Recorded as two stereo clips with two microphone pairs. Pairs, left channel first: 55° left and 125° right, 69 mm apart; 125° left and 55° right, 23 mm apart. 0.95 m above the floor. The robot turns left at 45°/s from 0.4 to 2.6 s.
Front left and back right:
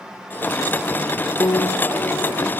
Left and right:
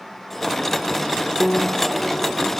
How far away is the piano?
About 1.8 m.